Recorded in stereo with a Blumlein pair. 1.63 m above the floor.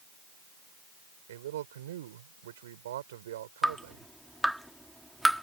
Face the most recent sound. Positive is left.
turn(degrees=0)